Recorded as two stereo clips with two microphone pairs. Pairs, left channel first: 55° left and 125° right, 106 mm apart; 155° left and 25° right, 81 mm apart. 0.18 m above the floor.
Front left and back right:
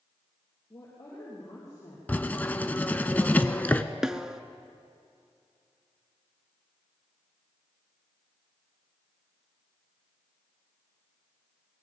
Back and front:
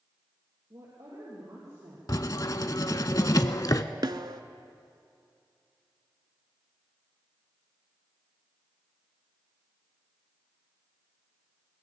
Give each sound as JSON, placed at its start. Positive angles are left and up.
{"t": 0.7, "sound": "a woman speaking", "azimuth_deg": 0, "distance_m": 4.5}
{"t": 2.1, "sound": "writing", "azimuth_deg": 125, "distance_m": 0.6}
{"t": 4.0, "sound": "a snare drum", "azimuth_deg": -40, "distance_m": 0.6}